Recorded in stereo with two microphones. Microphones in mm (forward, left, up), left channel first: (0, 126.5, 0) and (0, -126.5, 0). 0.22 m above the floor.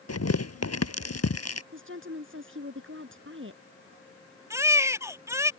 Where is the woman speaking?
55° right (ahead or behind).